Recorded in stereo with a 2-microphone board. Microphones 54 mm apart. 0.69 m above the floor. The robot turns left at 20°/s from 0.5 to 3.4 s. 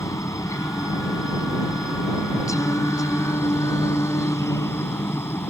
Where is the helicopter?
110° left; by 5.5 s 50° left.